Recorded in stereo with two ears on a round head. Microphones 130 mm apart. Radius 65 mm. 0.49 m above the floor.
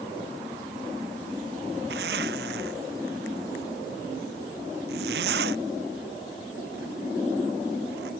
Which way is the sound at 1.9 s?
85° right.